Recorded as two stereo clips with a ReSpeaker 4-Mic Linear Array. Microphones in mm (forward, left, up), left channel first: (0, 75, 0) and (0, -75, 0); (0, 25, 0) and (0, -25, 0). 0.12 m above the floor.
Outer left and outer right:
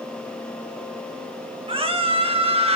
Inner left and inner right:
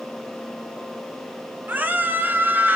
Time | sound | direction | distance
1.7 | a scream | 40° right (ahead or behind) | 2.5 m